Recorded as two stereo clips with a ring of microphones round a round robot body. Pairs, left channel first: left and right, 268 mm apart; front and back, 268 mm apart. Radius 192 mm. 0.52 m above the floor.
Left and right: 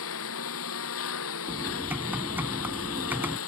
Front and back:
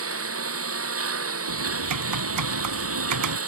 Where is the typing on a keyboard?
175° right.